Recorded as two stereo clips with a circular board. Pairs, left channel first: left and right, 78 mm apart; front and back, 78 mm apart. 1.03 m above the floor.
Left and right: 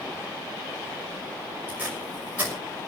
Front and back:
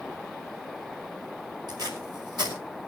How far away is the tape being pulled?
About 6 m.